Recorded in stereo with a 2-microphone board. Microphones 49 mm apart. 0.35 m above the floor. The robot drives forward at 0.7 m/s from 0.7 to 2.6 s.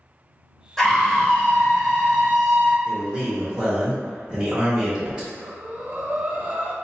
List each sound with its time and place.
0.8 s a scream: 10° left (ahead or behind), 0.9 m
2.9 s a man speaking: 15° right (ahead or behind), 1.0 m
5.3 s breathing: 30° right (ahead or behind), 0.6 m